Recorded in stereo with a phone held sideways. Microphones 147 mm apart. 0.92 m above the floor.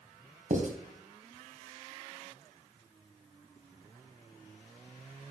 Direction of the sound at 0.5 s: 60° right (ahead or behind).